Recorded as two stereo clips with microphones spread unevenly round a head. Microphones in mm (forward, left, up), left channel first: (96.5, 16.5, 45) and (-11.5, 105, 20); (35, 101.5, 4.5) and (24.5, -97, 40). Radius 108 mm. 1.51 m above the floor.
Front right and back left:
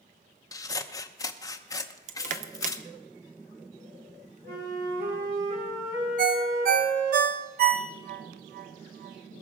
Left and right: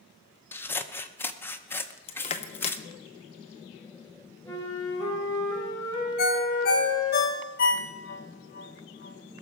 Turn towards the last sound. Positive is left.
turn(degrees=135)